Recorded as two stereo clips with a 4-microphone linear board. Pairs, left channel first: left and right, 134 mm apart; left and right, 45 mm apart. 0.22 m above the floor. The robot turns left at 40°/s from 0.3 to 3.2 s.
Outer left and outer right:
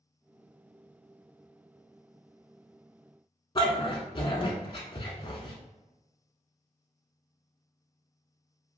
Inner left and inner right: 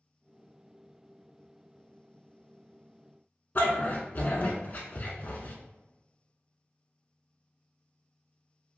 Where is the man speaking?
I don't hear a man speaking.